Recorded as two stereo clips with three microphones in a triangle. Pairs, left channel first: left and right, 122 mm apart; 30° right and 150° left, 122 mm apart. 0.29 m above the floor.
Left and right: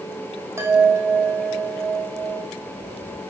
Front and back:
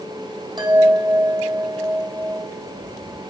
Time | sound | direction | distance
0.6 | a chime | 160° right | 3 m